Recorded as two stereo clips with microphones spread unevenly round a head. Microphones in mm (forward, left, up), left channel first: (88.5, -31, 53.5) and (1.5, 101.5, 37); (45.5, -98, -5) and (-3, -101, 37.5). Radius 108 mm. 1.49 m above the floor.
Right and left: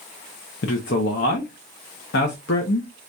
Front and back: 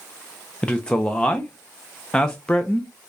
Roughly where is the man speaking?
Right.